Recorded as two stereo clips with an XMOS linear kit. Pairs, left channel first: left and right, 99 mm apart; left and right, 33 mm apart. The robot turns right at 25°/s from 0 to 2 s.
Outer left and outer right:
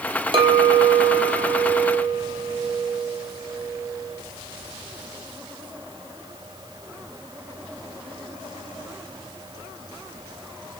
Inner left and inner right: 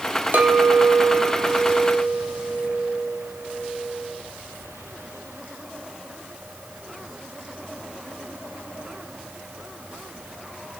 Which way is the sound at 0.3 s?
65° right.